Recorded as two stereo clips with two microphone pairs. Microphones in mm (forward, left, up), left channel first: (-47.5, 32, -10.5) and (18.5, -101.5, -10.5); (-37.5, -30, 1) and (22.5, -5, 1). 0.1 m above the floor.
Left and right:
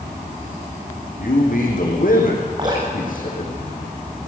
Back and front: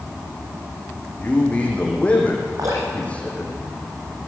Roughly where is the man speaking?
Behind left.